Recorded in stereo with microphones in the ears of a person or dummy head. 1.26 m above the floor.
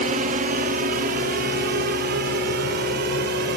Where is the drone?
40° right (ahead or behind); by 3.6 s 50° right (ahead or behind).